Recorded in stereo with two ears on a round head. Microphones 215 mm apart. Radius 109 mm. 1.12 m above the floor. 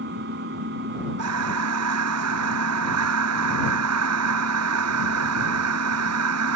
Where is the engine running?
45° right (ahead or behind).